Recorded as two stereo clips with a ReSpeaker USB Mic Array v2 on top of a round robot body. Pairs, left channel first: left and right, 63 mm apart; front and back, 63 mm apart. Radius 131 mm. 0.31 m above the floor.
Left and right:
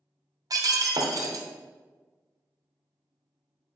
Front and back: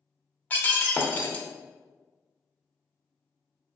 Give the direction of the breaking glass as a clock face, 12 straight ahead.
2 o'clock.